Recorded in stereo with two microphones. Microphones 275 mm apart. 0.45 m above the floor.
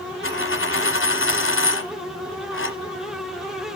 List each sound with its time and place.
0.2 s a dropped coin: 45° left (ahead or behind), 1.0 m